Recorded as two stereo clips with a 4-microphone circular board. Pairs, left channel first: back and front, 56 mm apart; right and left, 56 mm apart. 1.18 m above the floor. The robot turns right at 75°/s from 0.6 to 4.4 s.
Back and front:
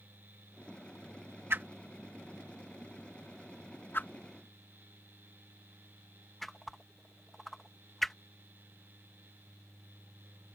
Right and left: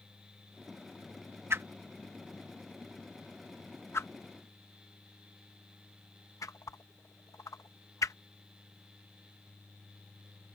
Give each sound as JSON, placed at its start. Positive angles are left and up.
{"t": 1.5, "sound": "a whoosh", "azimuth_deg": 50}